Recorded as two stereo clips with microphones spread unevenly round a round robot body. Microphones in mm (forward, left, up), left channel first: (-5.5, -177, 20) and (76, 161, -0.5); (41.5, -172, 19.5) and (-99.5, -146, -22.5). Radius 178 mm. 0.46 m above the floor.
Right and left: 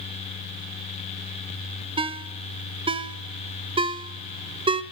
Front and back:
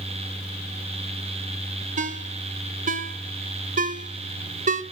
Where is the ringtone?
150° left, 0.8 m.